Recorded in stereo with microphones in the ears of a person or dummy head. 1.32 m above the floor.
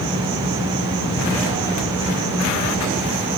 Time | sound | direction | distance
0.0 | an insect | 70° right (ahead or behind) | 1.4 m